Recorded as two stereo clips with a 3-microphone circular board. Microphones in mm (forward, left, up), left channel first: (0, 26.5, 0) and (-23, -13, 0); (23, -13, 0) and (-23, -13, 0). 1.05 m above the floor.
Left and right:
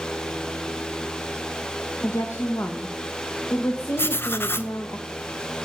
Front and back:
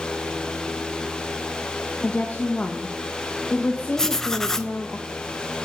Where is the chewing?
No chewing in this recording.